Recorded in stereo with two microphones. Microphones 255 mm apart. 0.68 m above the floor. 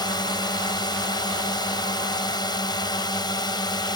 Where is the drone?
15° left (ahead or behind).